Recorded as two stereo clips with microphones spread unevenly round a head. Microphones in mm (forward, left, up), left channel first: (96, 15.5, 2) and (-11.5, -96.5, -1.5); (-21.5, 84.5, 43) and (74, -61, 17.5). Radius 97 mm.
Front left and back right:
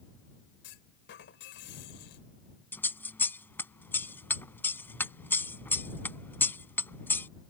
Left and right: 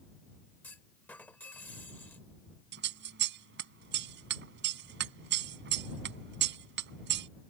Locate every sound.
0.6 s a clunk: 45° left
2.7 s scissors: 30° right